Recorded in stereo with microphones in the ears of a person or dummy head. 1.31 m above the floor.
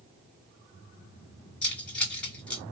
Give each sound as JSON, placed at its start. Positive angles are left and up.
{"t": 1.6, "sound": "keys jangling", "side_deg": 5, "distance_m": 2.0}